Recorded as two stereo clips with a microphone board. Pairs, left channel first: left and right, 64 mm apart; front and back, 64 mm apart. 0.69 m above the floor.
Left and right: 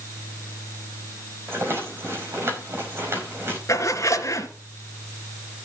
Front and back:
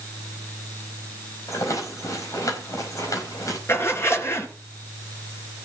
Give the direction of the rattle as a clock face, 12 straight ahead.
1 o'clock.